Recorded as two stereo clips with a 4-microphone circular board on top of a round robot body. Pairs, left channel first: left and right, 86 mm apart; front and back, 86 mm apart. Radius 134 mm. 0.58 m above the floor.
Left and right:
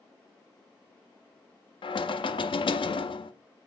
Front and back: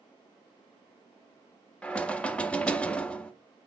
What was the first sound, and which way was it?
Knocking, 80° left.